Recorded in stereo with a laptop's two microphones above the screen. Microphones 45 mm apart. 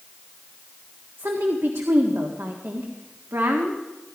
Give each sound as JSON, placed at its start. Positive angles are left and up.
{"t": 1.2, "sound": "a woman speaking", "side_deg": -80, "distance_m": 1.6}